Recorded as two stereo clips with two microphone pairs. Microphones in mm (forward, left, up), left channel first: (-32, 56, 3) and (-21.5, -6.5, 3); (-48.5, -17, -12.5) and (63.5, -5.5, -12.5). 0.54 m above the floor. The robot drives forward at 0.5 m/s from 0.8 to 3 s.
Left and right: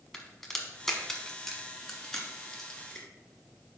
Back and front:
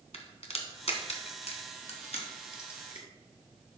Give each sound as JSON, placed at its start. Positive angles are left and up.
{"t": 0.1, "sound": "a crack", "azimuth_deg": -175, "distance_m": 1.3}